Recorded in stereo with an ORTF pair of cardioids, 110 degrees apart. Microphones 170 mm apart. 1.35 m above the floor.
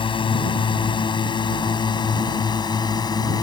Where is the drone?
30° left; by 3.4 s 25° left.